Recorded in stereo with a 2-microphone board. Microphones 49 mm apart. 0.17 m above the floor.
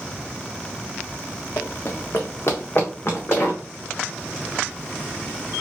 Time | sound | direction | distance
1.6 | running footsteps | 65° left (ahead or behind) | 0.8 m